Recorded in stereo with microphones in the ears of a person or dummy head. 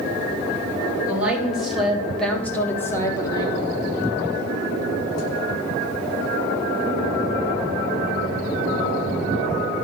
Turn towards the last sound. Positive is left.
turn(degrees=30)  # may be behind; listen again after turning